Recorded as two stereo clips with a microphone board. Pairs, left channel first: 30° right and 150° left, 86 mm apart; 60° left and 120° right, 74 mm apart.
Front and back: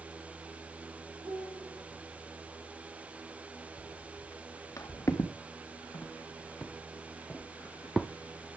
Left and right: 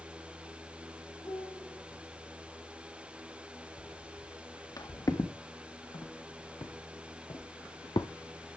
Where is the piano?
110° left, 8 m.